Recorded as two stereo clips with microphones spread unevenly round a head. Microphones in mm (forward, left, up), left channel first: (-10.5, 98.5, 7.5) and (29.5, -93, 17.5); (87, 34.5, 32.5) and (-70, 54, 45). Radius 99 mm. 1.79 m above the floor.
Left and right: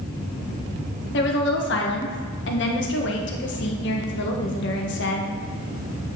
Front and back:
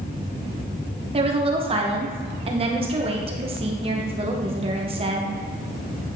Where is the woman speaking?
130° left, 1.4 m.